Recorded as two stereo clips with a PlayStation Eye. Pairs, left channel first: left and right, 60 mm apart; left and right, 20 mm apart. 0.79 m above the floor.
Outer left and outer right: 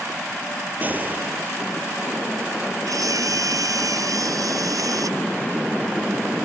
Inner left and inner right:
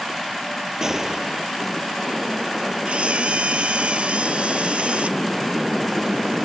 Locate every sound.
0.8 s a gunshot: 30° right (ahead or behind)
2.9 s a camera shutter: 80° right